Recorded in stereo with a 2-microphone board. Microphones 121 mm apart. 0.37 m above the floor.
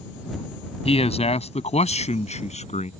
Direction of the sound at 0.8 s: 55° left (ahead or behind).